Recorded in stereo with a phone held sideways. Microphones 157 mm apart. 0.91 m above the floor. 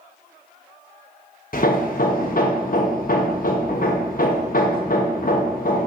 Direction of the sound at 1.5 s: 65° left (ahead or behind).